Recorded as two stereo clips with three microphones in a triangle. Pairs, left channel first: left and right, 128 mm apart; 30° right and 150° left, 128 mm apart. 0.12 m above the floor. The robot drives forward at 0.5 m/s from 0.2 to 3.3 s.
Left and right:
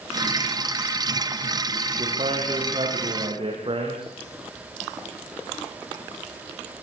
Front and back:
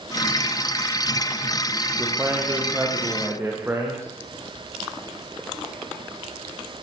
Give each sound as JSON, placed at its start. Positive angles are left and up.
{"t": 2.0, "sound": "a man speaking", "azimuth_deg": -135, "distance_m": 7.0}